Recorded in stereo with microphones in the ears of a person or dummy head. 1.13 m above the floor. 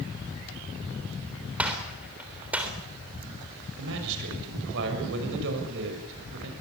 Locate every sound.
1.6 s a gunshot: 10° right (ahead or behind), 3.5 m
3.8 s a man speaking: 70° right (ahead or behind), 6.5 m